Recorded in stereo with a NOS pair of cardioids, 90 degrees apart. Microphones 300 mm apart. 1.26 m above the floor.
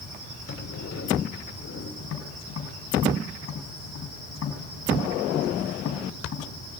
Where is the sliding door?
60° left, 3 m.